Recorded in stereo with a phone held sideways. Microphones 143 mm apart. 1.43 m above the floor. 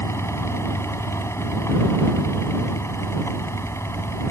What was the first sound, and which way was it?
A fan, 20° left (ahead or behind).